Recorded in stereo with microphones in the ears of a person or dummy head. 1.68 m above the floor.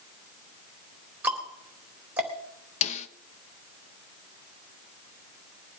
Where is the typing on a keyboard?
I don't hear typing on a keyboard.